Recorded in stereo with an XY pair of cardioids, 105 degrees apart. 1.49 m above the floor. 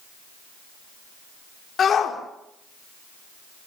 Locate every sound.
1.8 s a shout: 50° left, 5 m